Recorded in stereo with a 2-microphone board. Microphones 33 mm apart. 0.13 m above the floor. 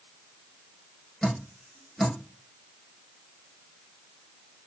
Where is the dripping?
10° left (ahead or behind), 1.4 m.